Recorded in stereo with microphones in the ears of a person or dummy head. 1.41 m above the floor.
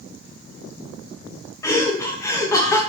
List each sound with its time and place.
1.6 s laughter: 25° left (ahead or behind), 0.6 m